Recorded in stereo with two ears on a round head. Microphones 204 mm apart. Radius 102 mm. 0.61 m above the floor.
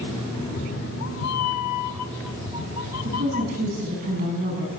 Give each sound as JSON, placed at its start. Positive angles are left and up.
{"t": 0.3, "sound": "a cat meowing", "side_deg": 25, "distance_m": 0.8}
{"t": 3.0, "sound": "a woman speaking", "side_deg": -40, "distance_m": 5.5}